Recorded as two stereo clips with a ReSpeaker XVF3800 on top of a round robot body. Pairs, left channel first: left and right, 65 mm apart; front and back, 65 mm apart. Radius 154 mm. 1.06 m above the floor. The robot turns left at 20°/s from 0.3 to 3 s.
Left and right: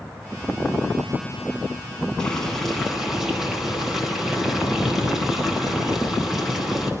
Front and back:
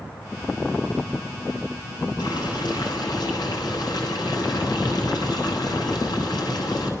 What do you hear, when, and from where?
2.2 s boiling: 10° left, 10 m; by 6.9 s 5° right, 10 m